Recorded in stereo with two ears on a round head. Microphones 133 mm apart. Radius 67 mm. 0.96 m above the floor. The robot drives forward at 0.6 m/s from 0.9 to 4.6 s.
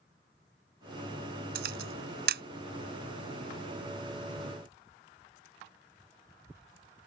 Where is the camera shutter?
75° right (ahead or behind); by 2.4 s 80° right.